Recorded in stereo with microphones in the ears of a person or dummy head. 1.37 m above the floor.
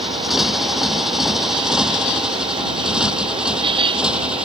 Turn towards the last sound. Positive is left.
turn(degrees=-5)  # may be behind; listen again after turning